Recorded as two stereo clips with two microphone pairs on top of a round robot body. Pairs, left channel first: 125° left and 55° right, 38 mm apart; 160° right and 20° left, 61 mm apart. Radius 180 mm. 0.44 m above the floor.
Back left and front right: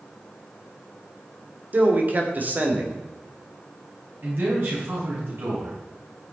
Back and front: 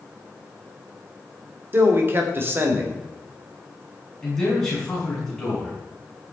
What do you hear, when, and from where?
1.7 s a man speaking: 15° right, 3 m
4.2 s a man speaking: 70° right, 6.5 m